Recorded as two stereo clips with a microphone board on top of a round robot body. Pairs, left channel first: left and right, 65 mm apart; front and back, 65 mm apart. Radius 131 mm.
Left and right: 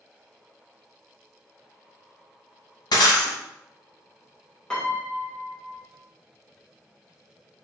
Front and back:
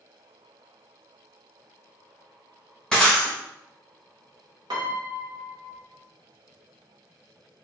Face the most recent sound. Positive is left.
turn(degrees=170)